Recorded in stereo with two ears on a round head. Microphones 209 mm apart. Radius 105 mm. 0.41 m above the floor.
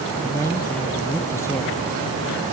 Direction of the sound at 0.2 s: 10° left (ahead or behind).